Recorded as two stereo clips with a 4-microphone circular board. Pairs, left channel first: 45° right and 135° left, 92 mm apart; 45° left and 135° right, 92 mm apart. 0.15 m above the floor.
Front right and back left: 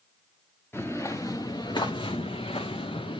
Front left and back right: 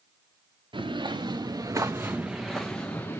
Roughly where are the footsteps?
Right.